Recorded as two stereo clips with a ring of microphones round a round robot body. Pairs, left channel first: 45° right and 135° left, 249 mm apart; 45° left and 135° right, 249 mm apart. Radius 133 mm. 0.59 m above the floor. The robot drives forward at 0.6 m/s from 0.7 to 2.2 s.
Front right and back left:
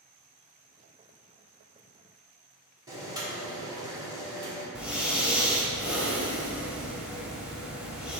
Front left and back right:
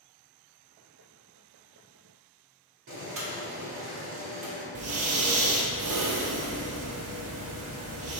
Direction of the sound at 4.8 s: 140° right.